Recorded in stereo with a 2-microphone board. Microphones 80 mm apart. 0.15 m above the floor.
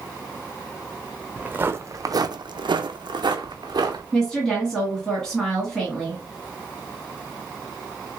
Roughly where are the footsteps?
Centre.